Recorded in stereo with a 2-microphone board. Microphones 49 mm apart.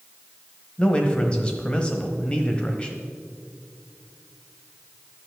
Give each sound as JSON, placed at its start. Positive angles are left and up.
{"t": 0.8, "sound": "a man speaking", "side_deg": 20, "distance_m": 1.1}